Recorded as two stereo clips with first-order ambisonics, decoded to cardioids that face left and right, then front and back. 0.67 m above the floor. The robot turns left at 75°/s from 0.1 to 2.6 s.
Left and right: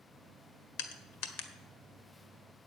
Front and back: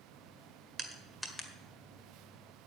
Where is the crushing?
115° left, 1.6 m; by 1.5 s 60° left, 1.6 m.